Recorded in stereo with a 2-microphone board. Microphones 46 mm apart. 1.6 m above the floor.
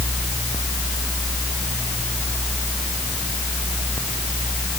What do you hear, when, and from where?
Only background noise.